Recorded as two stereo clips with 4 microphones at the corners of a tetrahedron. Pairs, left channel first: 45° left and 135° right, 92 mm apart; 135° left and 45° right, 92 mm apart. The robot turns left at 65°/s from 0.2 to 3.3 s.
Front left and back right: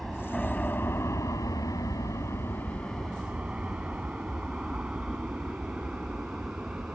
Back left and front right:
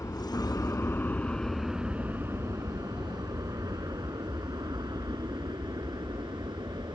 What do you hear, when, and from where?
0.0 s an aircraft: 130° left; by 7.0 s 55° right